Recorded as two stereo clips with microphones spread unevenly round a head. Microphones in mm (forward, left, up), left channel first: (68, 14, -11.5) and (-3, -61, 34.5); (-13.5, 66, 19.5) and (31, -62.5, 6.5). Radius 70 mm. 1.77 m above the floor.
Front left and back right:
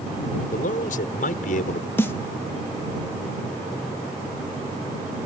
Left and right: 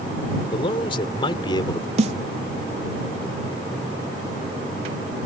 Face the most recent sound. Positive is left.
turn(degrees=-30)